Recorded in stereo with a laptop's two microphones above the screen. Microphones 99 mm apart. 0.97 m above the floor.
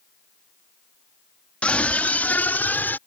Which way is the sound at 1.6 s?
15° left (ahead or behind).